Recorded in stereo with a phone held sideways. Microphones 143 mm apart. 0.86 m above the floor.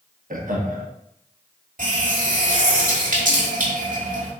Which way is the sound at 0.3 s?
75° right (ahead or behind).